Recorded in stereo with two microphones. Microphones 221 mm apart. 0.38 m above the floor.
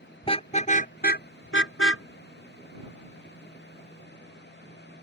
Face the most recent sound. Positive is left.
turn(degrees=55)  # may be behind; listen again after turning